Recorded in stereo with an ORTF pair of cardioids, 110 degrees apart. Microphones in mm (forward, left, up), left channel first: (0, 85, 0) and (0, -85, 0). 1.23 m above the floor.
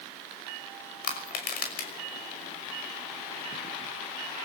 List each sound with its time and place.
1.0 s crushing: 65° left, 5.5 m